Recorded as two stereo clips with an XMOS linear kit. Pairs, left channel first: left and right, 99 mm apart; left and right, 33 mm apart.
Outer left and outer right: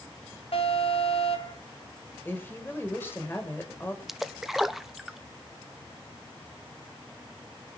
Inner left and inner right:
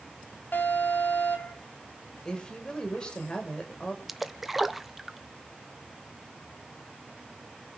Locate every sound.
0.5 s an alarm: 80° left, 4 m
2.2 s a woman speaking: 20° left (ahead or behind), 5.5 m
4.1 s a splash: 5° right (ahead or behind), 0.9 m